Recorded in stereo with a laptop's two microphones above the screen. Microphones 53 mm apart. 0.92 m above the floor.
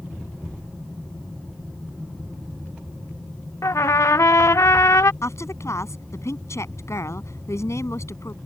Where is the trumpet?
70° left (ahead or behind).